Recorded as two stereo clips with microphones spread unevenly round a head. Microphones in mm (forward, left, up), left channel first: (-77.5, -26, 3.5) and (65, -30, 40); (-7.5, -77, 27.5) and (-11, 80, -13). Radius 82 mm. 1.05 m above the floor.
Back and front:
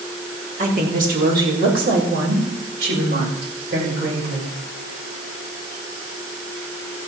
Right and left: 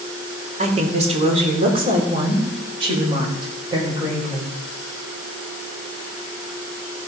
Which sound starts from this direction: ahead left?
A woman speaking, at 0.6 s.